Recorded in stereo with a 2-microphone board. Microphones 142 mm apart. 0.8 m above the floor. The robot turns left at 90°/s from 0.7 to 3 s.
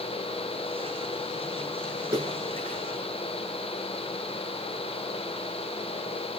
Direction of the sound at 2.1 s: 25° right (ahead or behind).